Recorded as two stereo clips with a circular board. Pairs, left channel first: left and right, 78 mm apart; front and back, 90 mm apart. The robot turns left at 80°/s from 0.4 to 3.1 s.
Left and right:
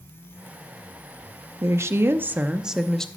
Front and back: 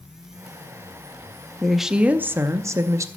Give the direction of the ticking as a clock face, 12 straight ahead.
I don't hear ticking.